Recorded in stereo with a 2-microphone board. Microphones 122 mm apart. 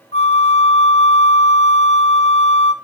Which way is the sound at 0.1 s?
60° left (ahead or behind).